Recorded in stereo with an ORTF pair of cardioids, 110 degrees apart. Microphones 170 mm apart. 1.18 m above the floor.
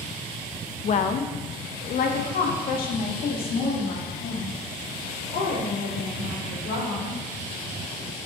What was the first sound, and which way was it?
A woman speaking, 40° left.